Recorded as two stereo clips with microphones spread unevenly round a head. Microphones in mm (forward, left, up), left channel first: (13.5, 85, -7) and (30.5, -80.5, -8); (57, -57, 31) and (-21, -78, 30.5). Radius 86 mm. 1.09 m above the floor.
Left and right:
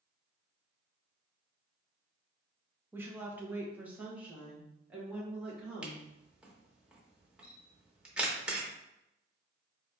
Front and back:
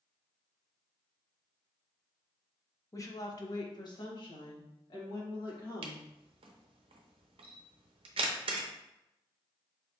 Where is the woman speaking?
10° right, 0.7 m; by 6.0 s straight ahead, 2 m.